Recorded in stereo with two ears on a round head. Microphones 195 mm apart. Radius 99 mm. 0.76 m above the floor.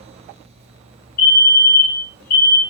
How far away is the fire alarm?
About 2.5 m.